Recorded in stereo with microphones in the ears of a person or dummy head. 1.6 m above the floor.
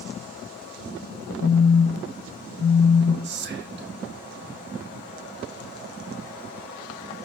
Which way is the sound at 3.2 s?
55° right (ahead or behind).